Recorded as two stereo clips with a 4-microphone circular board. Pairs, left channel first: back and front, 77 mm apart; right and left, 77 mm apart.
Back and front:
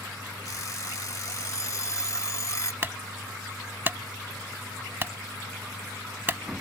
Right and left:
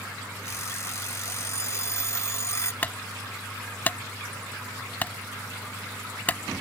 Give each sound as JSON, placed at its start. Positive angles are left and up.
{"t": 0.5, "sound": "an alarm clock", "azimuth_deg": -135}
{"t": 2.8, "sound": "a clunk", "azimuth_deg": -40}